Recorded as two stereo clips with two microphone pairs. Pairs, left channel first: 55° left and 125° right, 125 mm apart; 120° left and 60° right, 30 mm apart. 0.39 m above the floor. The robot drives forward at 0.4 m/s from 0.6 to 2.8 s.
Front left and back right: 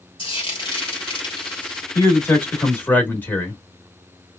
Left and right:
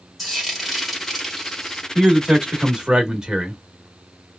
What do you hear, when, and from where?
0.2 s frying: 25° left, 1.7 m; by 1.9 s 35° left, 1.4 m
1.9 s a man speaking: 5° right, 1.6 m; by 3.6 s 10° right, 1.3 m